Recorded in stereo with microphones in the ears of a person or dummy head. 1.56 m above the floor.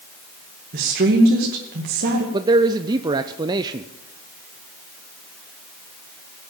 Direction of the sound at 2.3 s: 20° right (ahead or behind).